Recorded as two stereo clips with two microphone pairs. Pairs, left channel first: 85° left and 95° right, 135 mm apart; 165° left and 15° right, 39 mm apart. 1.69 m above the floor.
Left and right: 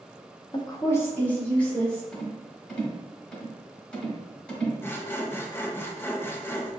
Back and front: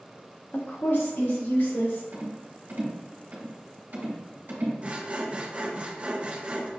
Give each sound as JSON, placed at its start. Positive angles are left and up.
{"t": 0.5, "sound": "a woman speaking", "azimuth_deg": 135, "distance_m": 0.6}
{"t": 2.1, "sound": "a rattle", "azimuth_deg": 5, "distance_m": 1.4}
{"t": 4.8, "sound": "sawing", "azimuth_deg": 20, "distance_m": 0.5}